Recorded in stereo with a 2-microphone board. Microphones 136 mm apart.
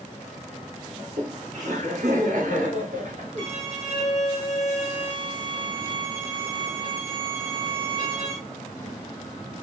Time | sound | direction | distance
1.0 | laughter | 65° right (ahead or behind) | 2.5 m
3.4 | a violin | 65° right (ahead or behind) | 2 m